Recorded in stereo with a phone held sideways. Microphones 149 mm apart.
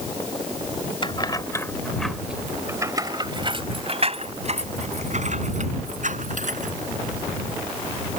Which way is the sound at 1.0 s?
35° left (ahead or behind).